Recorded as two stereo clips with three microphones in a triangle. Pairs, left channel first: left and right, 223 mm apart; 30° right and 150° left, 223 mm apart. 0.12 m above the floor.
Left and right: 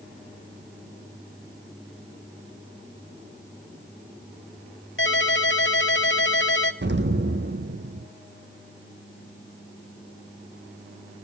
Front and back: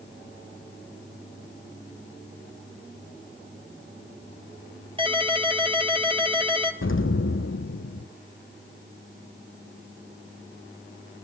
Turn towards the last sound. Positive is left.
turn(degrees=-50)